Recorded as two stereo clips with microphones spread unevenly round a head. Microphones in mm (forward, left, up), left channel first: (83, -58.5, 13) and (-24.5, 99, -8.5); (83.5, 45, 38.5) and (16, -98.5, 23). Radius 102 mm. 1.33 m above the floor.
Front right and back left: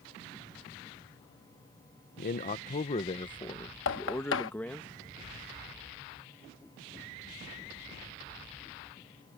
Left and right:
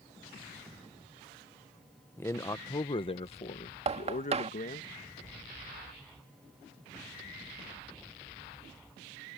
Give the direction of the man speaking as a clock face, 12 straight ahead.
12 o'clock.